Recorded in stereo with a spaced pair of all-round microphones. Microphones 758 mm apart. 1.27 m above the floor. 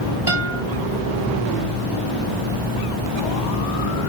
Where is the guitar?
35° left (ahead or behind), 2.5 m.